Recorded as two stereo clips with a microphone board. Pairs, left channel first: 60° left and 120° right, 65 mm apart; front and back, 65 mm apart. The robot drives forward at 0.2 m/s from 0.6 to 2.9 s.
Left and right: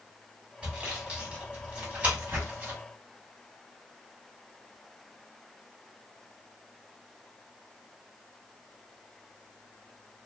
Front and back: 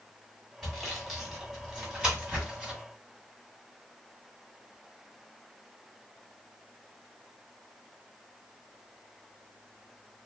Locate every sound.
0.6 s sawing: 90° right, 1.4 m; by 2.8 s 135° right, 1.5 m